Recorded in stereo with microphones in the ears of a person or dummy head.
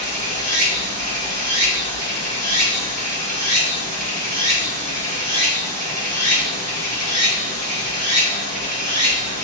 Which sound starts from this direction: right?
Running water, at 0.0 s.